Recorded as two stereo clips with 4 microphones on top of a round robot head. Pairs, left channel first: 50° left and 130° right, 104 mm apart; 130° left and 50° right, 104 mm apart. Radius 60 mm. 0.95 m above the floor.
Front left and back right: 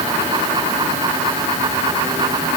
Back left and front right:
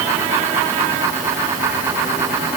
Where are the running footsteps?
I don't hear running footsteps.